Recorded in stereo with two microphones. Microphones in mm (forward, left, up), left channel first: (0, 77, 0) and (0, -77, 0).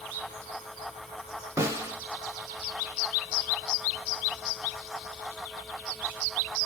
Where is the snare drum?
20° right (ahead or behind), 0.6 m.